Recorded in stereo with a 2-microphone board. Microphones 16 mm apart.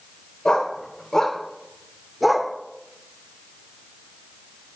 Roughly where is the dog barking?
Left.